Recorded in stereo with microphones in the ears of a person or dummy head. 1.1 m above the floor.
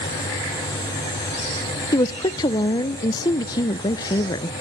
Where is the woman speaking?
20° left (ahead or behind), 0.5 m.